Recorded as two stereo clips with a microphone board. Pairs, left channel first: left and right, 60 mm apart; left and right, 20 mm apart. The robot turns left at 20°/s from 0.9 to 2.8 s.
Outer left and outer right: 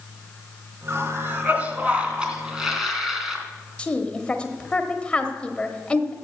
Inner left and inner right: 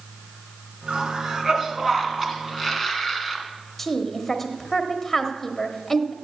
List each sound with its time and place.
0.9 s a cough: 135° right, 2.5 m; by 3.4 s 175° right, 2.5 m
3.8 s a woman speaking: 15° left (ahead or behind), 1.2 m